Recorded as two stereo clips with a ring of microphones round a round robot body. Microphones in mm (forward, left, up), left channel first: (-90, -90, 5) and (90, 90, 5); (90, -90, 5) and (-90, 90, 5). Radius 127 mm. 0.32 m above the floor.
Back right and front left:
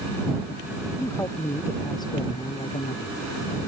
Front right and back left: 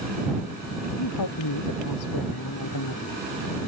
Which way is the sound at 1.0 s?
55° right.